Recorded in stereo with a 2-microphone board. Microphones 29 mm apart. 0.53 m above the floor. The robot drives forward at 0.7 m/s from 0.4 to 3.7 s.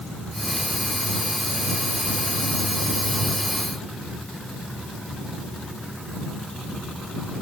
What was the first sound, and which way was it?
Only background noise.